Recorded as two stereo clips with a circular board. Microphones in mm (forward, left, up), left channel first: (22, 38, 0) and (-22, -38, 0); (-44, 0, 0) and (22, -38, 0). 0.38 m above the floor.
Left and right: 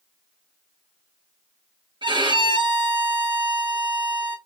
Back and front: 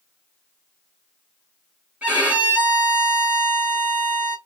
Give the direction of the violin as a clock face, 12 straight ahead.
3 o'clock.